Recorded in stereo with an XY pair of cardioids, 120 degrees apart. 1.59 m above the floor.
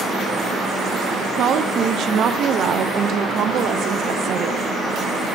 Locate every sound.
1.4 s a woman speaking: 55° right, 0.8 m